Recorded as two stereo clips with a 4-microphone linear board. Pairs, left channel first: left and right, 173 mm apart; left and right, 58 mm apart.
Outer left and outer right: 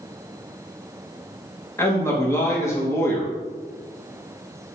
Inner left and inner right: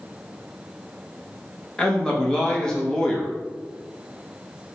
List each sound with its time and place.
1.8 s a man speaking: 15° left (ahead or behind), 0.8 m